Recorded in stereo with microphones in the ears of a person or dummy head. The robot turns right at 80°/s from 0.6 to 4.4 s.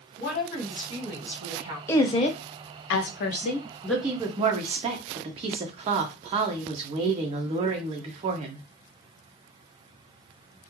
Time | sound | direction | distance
0.2 | a woman speaking | 130° left | 1.2 m
1.9 | a woman speaking | 15° left | 0.6 m